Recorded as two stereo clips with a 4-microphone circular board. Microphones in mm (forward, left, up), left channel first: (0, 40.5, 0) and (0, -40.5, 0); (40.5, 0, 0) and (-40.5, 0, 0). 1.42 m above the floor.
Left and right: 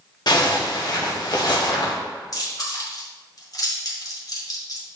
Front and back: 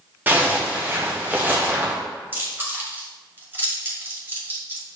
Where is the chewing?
120° left, 2 m.